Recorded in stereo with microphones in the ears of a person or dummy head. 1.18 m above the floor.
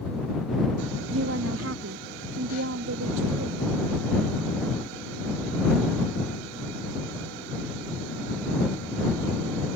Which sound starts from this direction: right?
A woman speaking, at 1.1 s.